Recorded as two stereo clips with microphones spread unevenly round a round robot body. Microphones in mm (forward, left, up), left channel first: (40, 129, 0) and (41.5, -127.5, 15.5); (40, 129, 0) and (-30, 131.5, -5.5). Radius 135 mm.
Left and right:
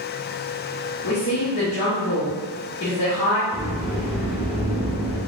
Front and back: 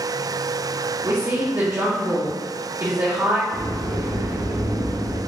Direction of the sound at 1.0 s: 130° left.